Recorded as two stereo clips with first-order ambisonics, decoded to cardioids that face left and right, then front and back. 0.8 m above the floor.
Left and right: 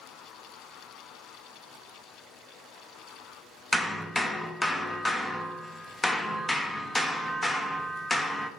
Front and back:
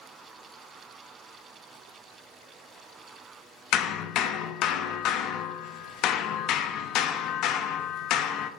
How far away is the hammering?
About 0.8 m.